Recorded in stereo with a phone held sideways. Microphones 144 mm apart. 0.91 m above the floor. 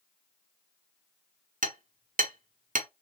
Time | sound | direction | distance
1.6 | hammering | 70° right (ahead or behind) | 1.0 m